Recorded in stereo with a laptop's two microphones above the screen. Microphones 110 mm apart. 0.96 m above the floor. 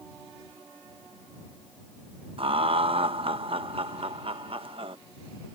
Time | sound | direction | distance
2.4 | laughter | 60° right (ahead or behind) | ?